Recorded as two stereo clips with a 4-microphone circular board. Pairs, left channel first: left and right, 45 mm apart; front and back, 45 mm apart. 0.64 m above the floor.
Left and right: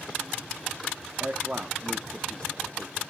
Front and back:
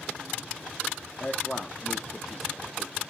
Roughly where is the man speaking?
Right.